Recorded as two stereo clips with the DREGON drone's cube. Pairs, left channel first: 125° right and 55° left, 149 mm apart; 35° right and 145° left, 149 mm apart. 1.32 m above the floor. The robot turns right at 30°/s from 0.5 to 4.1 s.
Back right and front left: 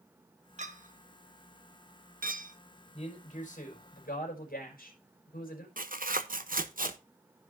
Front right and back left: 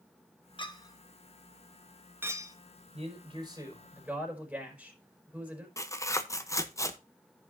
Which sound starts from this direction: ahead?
A clink, at 0.6 s.